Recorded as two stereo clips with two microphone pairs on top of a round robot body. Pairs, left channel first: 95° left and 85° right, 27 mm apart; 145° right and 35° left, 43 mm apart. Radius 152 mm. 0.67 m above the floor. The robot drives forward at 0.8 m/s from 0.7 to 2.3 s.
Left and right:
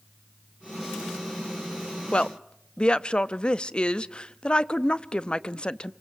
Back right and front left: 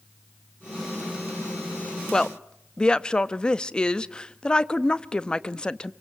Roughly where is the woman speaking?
Behind left.